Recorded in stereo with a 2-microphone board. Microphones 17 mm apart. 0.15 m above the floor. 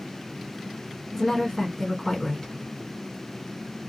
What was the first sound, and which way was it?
A woman speaking, 20° left (ahead or behind).